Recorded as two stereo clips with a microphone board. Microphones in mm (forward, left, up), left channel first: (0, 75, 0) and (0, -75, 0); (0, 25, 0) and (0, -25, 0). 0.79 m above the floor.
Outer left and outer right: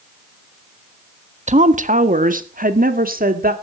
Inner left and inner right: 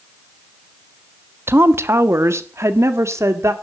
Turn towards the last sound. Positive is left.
turn(degrees=-70)  # may be behind; listen again after turning